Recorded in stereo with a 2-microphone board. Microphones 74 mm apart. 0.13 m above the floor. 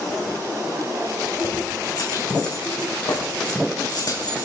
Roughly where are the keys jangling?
Left.